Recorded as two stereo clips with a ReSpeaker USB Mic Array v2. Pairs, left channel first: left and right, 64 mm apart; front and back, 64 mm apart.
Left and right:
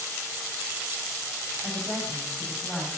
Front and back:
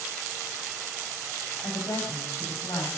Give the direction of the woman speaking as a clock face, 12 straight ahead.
12 o'clock.